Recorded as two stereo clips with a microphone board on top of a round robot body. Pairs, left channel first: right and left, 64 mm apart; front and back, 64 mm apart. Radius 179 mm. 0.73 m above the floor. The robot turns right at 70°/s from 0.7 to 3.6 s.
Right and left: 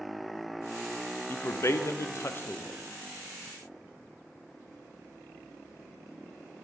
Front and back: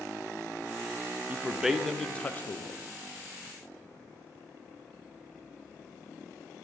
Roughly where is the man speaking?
Behind right.